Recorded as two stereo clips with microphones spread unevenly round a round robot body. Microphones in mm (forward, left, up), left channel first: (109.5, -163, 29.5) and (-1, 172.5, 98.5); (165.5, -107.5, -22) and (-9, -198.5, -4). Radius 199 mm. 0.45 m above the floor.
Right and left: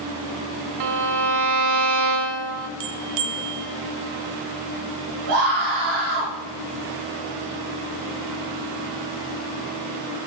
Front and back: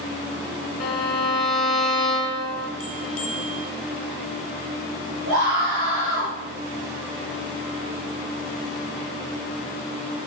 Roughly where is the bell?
Left.